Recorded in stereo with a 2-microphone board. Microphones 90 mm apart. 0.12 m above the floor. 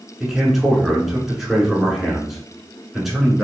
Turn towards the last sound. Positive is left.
turn(degrees=0)  # may be behind; listen again after turning